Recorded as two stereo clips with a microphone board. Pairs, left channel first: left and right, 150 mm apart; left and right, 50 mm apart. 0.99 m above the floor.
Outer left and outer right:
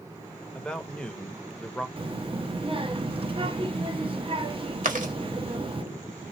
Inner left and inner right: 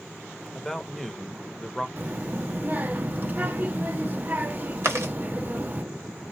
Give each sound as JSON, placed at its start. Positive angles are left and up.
{"t": 0.6, "sound": "a man speaking", "side_deg": 5, "distance_m": 0.9}
{"t": 2.0, "sound": "a child speaking", "side_deg": -40, "distance_m": 0.8}
{"t": 4.8, "sound": "chewing", "side_deg": -65, "distance_m": 1.2}